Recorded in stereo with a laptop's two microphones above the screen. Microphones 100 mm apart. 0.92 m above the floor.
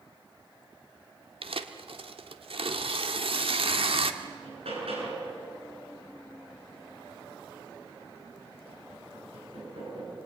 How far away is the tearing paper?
About 1.5 m.